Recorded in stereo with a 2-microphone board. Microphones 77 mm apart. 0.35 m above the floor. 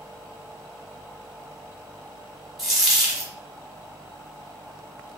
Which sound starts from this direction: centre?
A dropped coin, at 2.6 s.